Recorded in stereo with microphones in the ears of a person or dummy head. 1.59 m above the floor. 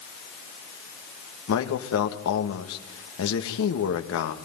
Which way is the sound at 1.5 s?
80° left.